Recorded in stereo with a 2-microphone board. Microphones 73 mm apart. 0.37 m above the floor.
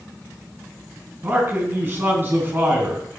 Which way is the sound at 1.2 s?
30° right (ahead or behind).